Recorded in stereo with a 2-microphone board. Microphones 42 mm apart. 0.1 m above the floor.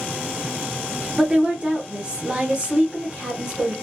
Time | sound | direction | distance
1.2 | a woman speaking | 25° right (ahead or behind) | 1.7 m